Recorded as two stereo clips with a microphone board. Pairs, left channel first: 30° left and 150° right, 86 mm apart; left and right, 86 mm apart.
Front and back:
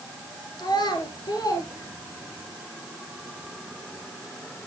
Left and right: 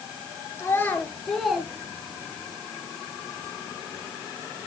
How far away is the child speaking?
About 1.6 m.